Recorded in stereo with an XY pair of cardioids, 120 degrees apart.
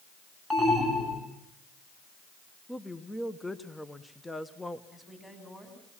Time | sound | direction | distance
0.5 | an alarm | 10° left | 7.5 m
2.7 | a woman speaking | 10° left | 1.1 m
4.9 | a woman speaking | 10° left | 7 m